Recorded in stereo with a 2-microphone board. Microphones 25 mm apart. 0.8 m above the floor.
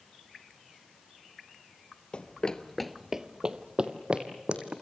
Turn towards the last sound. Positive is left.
turn(degrees=-45)  # may be behind; listen again after turning